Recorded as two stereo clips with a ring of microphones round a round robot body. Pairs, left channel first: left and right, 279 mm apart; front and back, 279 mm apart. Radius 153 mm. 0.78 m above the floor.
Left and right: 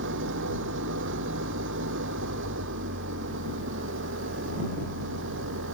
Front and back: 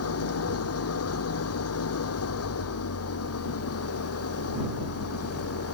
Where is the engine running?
35° right.